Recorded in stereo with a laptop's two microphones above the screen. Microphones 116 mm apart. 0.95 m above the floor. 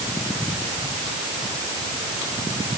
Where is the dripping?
No dripping in this recording.